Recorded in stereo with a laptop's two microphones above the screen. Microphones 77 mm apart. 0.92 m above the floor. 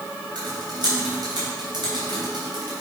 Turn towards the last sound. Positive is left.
turn(degrees=-75)  # may be behind; listen again after turning